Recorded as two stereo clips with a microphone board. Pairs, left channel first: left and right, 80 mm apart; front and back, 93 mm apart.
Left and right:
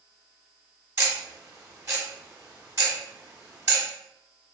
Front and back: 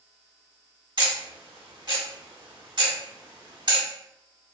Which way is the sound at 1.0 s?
145° right.